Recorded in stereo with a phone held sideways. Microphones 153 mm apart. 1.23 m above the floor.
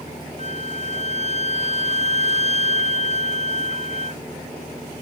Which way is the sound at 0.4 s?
45° right (ahead or behind).